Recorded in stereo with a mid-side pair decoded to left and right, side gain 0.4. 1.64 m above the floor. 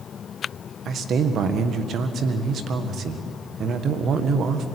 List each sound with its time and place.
0.8 s a man speaking: 65° right, 1.7 m